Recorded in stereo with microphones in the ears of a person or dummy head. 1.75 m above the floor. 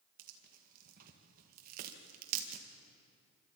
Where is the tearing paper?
50° right (ahead or behind), 2.0 m.